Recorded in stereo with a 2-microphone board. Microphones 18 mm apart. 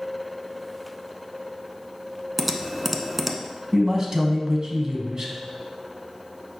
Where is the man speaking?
35° right (ahead or behind), 1.3 m.